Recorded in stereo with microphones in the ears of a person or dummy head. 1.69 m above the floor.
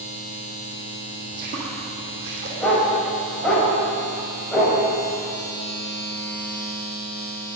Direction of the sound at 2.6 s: 5° left (ahead or behind).